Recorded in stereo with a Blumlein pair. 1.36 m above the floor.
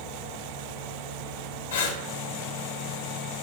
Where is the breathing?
65° left, 1.2 m.